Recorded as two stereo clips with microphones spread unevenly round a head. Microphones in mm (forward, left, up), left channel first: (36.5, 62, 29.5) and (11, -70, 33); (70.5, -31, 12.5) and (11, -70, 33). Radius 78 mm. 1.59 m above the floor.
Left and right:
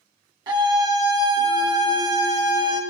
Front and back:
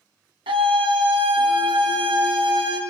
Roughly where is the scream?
Behind.